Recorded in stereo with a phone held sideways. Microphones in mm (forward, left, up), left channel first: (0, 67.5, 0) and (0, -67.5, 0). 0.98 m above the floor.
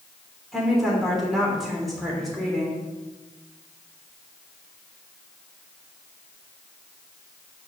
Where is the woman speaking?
Centre (ahead or behind), 3 m.